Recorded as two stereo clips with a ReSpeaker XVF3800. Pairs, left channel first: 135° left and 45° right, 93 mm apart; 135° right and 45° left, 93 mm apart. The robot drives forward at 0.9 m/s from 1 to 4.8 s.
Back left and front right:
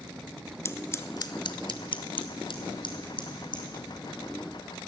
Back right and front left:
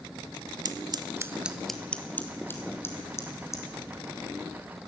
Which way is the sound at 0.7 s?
80° left.